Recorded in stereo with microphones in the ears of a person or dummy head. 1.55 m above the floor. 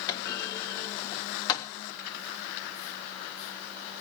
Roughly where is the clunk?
Left.